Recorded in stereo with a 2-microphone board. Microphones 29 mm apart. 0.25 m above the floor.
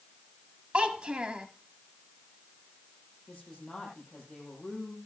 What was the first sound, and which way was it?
A child speaking, 35° right (ahead or behind).